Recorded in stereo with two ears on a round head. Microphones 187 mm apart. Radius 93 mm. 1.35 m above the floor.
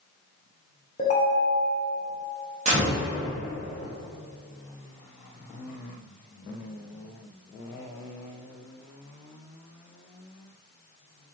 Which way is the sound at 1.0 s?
35° left (ahead or behind).